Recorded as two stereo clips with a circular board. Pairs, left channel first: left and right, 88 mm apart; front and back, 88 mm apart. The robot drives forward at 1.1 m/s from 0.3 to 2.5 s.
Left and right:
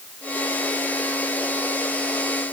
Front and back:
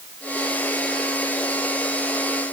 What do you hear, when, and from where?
Only background noise.